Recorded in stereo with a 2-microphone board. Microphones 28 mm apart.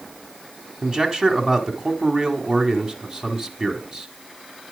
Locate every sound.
0.8 s a man speaking: 30° right (ahead or behind), 1.5 m